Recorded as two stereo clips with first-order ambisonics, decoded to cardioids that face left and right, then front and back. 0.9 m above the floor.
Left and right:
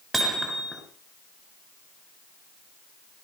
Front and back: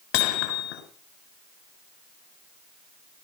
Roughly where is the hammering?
Ahead.